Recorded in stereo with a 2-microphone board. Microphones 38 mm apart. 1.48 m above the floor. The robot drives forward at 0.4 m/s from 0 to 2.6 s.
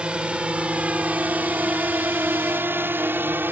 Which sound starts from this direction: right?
A drone, at 0.0 s.